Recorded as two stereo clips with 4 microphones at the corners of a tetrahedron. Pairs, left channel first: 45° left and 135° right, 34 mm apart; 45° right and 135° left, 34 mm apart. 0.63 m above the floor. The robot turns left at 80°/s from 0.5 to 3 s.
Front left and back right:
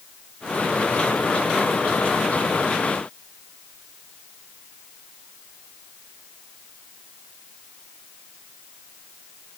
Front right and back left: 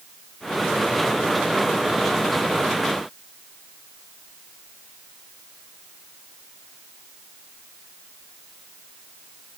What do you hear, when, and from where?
Only background noise.